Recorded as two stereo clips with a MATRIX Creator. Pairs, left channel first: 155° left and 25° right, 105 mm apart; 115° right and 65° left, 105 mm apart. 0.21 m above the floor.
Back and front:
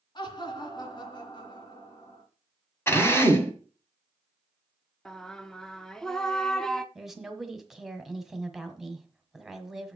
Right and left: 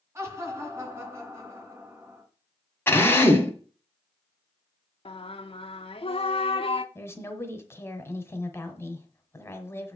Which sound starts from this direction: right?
A woman speaking, at 7.0 s.